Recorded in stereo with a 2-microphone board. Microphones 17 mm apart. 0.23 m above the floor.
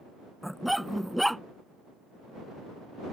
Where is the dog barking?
5° left (ahead or behind).